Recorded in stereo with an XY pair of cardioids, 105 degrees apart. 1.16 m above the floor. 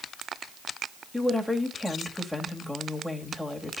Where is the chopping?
No chopping in this recording.